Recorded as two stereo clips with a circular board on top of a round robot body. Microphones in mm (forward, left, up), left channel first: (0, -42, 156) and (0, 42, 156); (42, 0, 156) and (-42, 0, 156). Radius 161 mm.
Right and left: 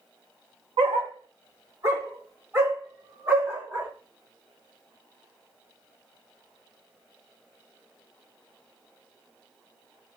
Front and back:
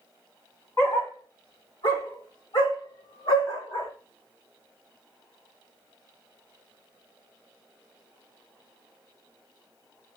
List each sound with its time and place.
0.8 s a dog barking: 65° left, 1.3 m; by 3.9 s 20° left, 4 m